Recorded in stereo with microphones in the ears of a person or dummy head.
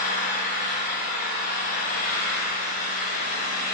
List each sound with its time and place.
0.0 s an engine running: 45° left (ahead or behind), 5 m